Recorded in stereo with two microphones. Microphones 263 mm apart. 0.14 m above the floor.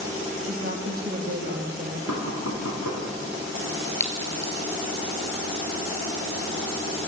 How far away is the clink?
About 2 m.